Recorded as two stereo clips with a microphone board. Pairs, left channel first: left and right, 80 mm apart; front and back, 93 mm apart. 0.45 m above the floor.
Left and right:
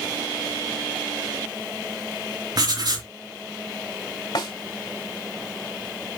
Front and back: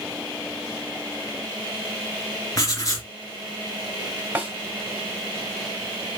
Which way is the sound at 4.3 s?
110° left.